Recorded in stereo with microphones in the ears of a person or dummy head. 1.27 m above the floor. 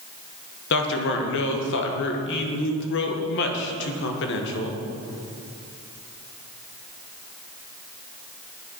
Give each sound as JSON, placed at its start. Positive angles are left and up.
{"t": 0.7, "sound": "a man speaking", "side_deg": 60, "distance_m": 1.2}